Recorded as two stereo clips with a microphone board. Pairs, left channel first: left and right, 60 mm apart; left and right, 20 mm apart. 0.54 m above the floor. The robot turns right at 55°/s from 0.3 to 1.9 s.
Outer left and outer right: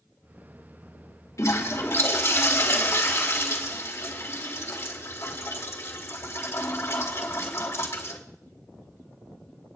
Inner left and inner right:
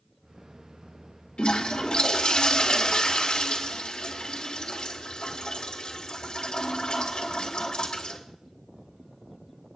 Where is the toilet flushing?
65° left (ahead or behind), 2.5 m; by 8.2 s 45° left (ahead or behind), 2.5 m.